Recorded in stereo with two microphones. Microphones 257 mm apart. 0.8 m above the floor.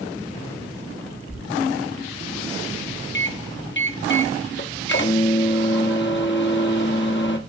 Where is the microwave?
45° left (ahead or behind), 1.2 m.